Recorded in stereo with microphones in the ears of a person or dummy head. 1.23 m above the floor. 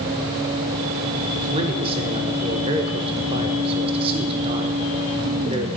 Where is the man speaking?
30° right (ahead or behind), 0.9 m.